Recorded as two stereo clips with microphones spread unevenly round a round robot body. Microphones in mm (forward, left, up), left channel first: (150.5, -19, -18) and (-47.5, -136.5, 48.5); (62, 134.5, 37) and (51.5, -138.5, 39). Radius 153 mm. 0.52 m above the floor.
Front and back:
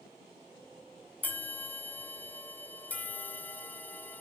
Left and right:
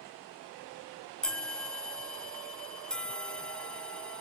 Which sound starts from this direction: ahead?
A bell, at 1.2 s.